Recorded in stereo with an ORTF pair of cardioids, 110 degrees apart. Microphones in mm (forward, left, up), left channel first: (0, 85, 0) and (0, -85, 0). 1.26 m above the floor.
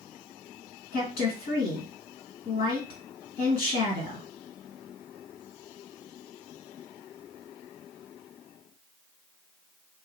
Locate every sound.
0.9 s a woman speaking: 65° left, 2 m